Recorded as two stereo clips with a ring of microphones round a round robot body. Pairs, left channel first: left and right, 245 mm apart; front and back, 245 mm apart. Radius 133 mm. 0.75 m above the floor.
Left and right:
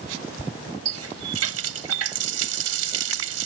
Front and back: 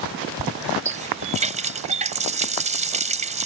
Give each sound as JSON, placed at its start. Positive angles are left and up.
{"t": 0.8, "sound": "a running tap", "azimuth_deg": -115}